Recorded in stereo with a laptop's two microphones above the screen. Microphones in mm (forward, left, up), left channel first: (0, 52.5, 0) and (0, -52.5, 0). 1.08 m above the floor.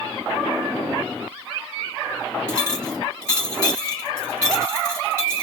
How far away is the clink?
About 5 m.